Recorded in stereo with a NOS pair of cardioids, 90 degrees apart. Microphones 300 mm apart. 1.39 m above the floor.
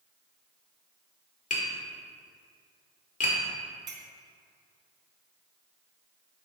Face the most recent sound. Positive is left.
turn(degrees=-40)